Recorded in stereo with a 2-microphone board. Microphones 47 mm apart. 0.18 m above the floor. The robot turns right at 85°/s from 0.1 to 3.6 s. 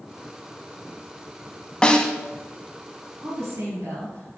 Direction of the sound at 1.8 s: 20° left (ahead or behind).